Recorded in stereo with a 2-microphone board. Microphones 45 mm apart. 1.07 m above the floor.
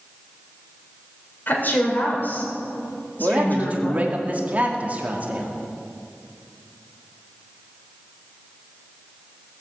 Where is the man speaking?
35° right (ahead or behind), 2.5 m.